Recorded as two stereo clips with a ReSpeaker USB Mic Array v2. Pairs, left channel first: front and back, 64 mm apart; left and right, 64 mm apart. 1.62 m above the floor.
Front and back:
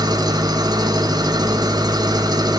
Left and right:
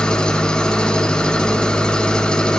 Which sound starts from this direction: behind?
An engine running, at 0.0 s.